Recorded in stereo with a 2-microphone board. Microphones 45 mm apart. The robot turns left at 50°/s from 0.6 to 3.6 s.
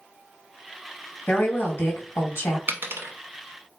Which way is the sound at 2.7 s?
45° right (ahead or behind).